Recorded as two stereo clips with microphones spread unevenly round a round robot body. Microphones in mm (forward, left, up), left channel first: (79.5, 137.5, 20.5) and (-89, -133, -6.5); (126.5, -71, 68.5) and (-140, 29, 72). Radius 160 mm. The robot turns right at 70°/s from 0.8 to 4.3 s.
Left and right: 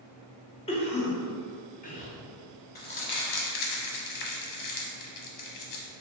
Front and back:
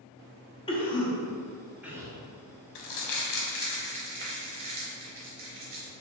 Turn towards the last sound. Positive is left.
turn(degrees=85)